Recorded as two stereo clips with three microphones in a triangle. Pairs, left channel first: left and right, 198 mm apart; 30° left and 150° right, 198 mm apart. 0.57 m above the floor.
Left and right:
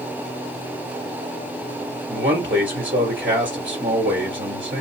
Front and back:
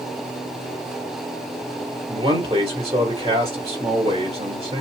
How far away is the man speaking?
About 2.5 m.